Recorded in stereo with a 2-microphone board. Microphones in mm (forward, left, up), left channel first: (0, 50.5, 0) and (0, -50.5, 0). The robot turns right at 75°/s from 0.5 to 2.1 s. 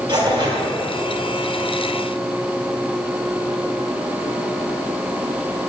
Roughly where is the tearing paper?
Right.